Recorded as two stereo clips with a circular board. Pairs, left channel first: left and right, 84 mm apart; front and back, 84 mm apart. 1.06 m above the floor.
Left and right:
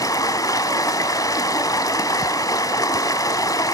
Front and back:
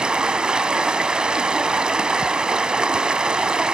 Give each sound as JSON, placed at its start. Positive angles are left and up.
{"t": 0.0, "sound": "running water", "azimuth_deg": 105, "distance_m": 1.2}